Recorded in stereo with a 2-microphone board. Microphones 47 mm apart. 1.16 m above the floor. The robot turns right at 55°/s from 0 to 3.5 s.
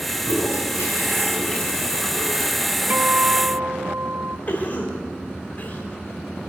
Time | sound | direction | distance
0.2 | a toilet flushing | 85° left | 7.5 m
2.9 | a guitar | 135° right | 1.0 m
4.5 | a cough | 35° left (ahead or behind) | 5.5 m